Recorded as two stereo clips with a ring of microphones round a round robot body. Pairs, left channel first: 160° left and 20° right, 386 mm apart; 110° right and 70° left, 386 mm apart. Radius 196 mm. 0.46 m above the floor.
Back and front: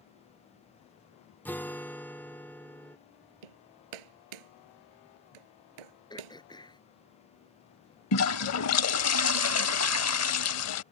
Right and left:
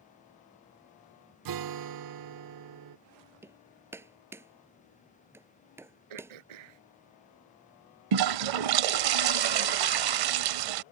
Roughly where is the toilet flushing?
Left.